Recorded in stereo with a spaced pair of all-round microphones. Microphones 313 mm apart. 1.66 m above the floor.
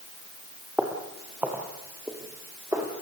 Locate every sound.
0.8 s footsteps: 5° right (ahead or behind), 2.5 m; by 2.9 s 10° right (ahead or behind), 4 m